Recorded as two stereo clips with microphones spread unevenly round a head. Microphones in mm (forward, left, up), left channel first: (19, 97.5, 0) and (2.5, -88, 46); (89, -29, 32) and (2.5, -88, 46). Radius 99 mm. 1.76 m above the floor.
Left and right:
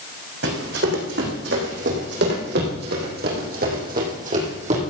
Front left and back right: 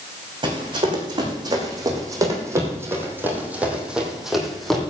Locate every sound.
0.4 s running footsteps: 110° right, 5 m; by 4.8 s 55° right, 3.5 m